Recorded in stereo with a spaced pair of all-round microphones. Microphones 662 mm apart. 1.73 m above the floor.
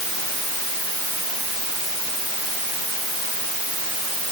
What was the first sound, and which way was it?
Only background noise.